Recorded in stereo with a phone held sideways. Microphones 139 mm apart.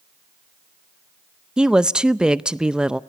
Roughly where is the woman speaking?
Centre.